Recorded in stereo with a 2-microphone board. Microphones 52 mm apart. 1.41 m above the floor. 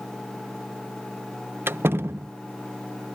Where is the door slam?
50° right (ahead or behind).